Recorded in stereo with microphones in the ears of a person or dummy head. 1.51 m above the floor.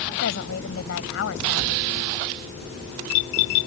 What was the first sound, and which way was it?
A woman speaking, 75° left (ahead or behind).